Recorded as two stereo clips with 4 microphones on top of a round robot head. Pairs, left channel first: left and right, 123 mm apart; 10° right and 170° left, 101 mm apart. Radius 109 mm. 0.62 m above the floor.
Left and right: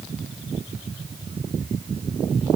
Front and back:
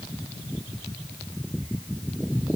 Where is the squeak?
I don't hear a squeak.